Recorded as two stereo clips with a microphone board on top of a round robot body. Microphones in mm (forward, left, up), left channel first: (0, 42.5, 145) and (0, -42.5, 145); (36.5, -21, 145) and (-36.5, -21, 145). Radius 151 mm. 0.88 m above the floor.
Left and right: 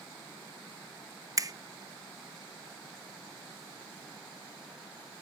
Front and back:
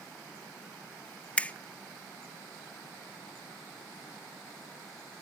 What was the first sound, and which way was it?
A finger snap, 65° right.